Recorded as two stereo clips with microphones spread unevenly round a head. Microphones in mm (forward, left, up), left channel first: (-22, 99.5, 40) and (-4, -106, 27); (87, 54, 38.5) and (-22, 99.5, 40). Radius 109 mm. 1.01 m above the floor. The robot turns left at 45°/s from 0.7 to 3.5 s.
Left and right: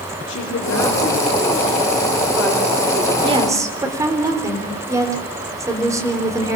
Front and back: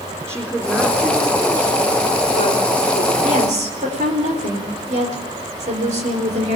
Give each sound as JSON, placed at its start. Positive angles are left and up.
{"t": 0.3, "sound": "a woman speaking", "azimuth_deg": 60, "distance_m": 4.0}
{"t": 3.2, "sound": "a woman speaking", "azimuth_deg": -150, "distance_m": 4.0}